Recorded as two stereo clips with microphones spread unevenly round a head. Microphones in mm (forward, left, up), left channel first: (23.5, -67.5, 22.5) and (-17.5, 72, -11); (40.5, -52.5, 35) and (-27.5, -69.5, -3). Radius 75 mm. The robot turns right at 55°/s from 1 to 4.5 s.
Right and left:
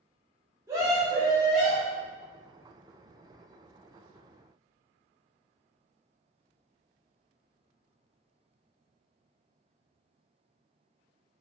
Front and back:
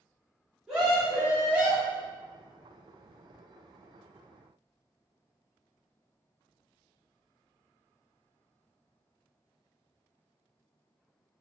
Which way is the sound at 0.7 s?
150° left.